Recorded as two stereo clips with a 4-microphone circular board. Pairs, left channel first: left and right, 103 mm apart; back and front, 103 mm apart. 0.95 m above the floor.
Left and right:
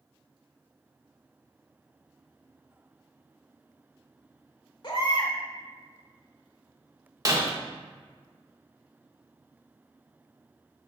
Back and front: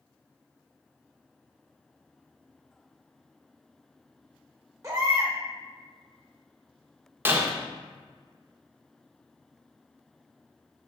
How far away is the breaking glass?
About 0.6 m.